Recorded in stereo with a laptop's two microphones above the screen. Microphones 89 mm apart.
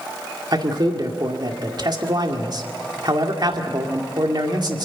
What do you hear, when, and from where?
0.5 s a man speaking: 50° right (ahead or behind), 2 m